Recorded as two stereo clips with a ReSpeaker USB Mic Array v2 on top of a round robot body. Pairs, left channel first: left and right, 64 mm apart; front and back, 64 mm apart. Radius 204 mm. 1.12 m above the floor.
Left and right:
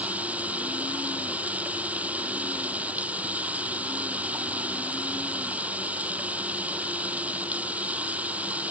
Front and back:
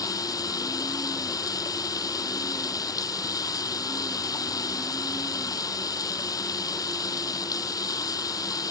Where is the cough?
No cough in this recording.